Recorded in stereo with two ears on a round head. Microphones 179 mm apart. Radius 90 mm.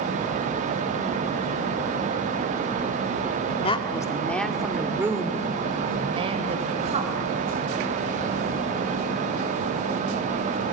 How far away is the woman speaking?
About 1.6 m.